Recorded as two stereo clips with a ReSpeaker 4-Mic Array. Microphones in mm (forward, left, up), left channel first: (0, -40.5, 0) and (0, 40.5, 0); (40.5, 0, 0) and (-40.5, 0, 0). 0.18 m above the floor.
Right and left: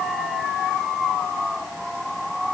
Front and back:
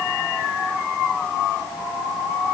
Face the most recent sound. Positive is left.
No sound to turn to.